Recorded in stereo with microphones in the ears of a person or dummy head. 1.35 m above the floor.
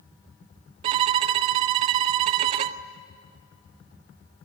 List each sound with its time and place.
0.8 s a violin: 35° right (ahead or behind), 0.6 m